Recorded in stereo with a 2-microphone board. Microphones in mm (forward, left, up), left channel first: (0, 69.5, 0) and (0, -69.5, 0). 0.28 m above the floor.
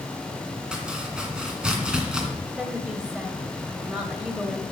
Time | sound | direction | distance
0.7 | chopping | 5° right (ahead or behind) | 2.5 m
2.6 | a woman speaking | 5° right (ahead or behind) | 1.4 m